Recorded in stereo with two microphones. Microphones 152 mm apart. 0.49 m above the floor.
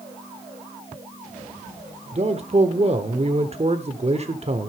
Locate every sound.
2.1 s a man speaking: 45° right (ahead or behind), 1.2 m